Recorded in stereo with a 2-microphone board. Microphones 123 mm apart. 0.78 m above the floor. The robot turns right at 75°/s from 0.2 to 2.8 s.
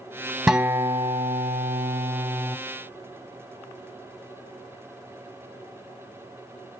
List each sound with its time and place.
0.5 s a guitar: 175° right, 0.7 m; by 2.6 s 20° right, 0.7 m